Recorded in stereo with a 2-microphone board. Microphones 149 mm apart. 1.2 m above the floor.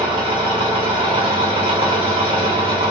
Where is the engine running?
35° right (ahead or behind), 1.3 m.